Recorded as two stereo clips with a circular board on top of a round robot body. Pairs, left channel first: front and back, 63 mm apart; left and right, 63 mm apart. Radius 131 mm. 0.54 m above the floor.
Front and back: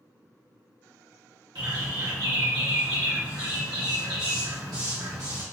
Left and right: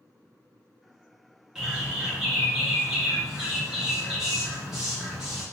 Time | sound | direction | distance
1.6 | a bird | 170° right | 1.3 m